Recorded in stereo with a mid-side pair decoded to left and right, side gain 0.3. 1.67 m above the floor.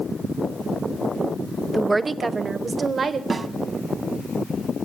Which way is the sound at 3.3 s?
50° right.